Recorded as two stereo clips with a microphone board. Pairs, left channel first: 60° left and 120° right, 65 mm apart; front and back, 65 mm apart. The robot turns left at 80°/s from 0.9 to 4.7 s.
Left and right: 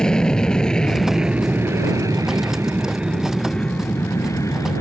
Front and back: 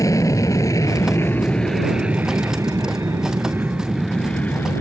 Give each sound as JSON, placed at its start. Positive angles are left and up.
{"t": 0.0, "sound": "an aircraft", "azimuth_deg": -20}